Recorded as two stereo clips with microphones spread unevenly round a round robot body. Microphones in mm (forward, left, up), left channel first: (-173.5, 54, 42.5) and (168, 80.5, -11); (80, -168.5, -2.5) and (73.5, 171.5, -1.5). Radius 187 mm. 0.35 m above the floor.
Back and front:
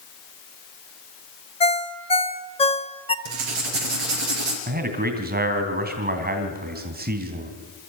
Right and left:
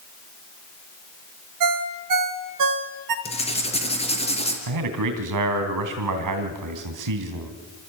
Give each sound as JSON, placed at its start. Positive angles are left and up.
{"t": 1.6, "sound": "a ringtone", "azimuth_deg": 105, "distance_m": 1.0}
{"t": 3.2, "sound": "writing", "azimuth_deg": -15, "distance_m": 3.5}
{"t": 4.7, "sound": "a man speaking", "azimuth_deg": 65, "distance_m": 2.5}